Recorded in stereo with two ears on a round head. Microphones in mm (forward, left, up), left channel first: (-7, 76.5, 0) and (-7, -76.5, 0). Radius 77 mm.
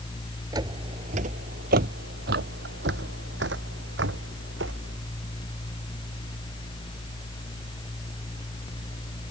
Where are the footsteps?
25° right (ahead or behind); by 5.0 s 75° right (ahead or behind).